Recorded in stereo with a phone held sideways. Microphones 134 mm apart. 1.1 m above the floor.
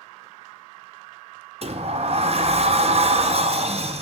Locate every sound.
1.6 s a sliding door: 50° right (ahead or behind), 0.6 m